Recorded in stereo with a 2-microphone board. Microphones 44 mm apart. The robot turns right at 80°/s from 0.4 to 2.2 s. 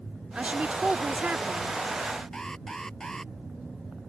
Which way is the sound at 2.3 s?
10° left (ahead or behind).